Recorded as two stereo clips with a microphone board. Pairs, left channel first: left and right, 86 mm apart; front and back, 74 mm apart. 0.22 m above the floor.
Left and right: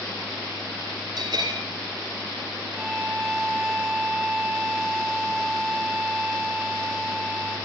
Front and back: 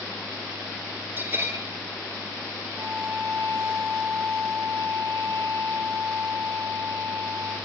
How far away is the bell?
About 2 m.